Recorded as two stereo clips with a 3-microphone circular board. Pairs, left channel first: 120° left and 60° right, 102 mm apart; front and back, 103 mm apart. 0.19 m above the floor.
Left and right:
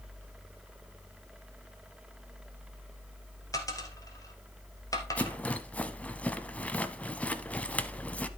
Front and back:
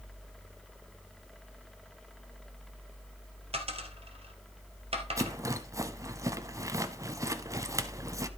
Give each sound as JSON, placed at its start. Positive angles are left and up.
{"t": 3.5, "sound": "a dropped coin", "azimuth_deg": 175, "distance_m": 2.0}
{"t": 5.2, "sound": "a rattle", "azimuth_deg": -175, "distance_m": 0.7}